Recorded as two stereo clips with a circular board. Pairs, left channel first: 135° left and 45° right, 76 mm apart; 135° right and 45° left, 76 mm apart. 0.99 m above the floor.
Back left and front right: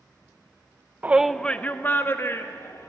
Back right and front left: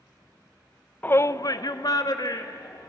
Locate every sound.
1.0 s a shout: 85° right, 0.6 m; by 2.9 s 170° right, 2.5 m